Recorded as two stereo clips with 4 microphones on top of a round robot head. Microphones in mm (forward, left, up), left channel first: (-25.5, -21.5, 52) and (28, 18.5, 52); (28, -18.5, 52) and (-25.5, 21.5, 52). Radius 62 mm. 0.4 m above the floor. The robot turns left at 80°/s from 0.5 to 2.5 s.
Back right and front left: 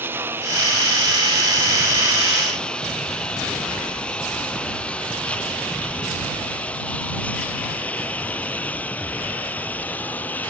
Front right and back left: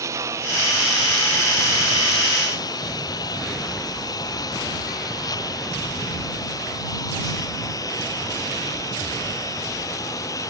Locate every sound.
0.0 s a lawn mower: 95° left; by 10.5 s 75° right